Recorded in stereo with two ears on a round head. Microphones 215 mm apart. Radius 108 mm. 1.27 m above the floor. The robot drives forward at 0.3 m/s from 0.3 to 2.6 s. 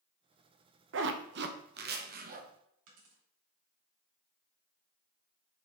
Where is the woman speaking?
I don't hear a woman speaking.